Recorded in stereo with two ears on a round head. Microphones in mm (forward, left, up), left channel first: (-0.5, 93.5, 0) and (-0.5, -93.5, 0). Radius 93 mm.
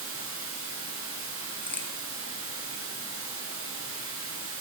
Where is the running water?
70° right (ahead or behind), 4.5 m.